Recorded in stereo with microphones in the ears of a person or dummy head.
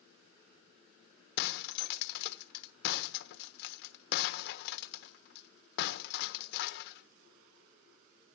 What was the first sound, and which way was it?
Breaking glass, 60° left (ahead or behind).